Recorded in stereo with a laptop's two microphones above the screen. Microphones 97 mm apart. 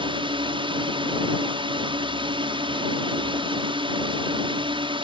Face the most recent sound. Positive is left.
turn(degrees=-60)  # may be behind; listen again after turning